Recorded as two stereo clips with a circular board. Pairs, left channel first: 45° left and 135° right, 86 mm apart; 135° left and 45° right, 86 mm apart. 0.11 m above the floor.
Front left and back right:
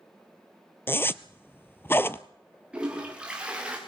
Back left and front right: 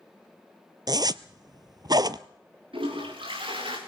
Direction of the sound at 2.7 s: 55° right.